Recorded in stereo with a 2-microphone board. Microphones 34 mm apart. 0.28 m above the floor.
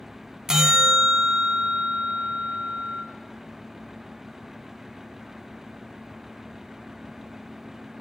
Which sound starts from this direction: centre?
A bell, at 0.5 s.